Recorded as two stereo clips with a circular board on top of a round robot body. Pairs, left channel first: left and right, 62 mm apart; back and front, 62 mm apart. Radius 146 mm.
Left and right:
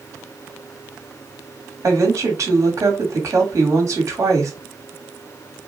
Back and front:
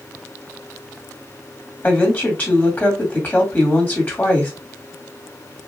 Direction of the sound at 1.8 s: 120° right.